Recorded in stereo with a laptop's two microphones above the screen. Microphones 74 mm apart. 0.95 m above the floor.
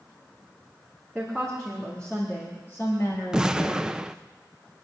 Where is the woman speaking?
Centre (ahead or behind), 2.0 m; by 3.9 s 60° left (ahead or behind), 1.8 m.